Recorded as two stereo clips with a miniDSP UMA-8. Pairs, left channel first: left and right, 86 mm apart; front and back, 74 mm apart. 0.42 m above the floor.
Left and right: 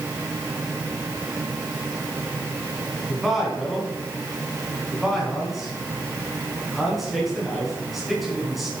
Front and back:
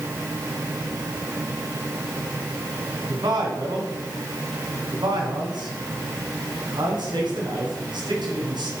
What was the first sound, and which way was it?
A man speaking, straight behind.